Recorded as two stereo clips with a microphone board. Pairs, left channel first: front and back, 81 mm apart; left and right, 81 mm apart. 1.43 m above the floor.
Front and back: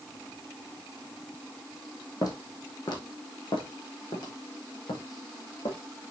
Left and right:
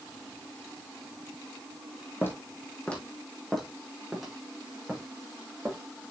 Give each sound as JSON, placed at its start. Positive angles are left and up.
{"t": 2.2, "sound": "footsteps", "azimuth_deg": 30, "distance_m": 3.0}